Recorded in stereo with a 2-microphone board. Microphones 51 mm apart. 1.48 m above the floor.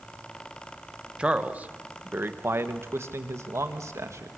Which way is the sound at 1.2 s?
20° right (ahead or behind).